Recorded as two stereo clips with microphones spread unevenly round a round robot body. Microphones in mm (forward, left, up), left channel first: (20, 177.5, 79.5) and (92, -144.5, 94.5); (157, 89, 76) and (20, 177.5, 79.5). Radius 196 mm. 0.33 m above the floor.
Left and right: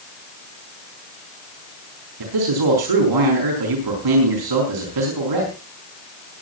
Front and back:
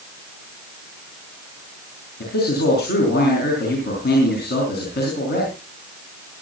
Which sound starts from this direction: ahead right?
A man speaking, at 2.2 s.